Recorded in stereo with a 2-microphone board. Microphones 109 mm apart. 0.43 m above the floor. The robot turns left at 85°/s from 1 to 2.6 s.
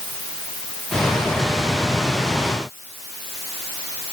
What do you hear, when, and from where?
Only background noise.